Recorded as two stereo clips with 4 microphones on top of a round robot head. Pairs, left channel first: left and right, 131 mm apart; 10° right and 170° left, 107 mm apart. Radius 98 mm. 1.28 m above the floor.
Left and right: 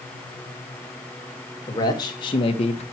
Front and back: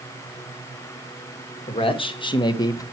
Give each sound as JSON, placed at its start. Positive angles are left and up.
{"t": 1.7, "sound": "a man speaking", "azimuth_deg": 25, "distance_m": 2.0}